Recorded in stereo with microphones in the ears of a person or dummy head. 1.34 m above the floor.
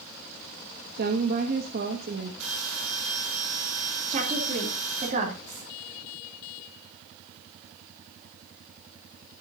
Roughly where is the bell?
Right.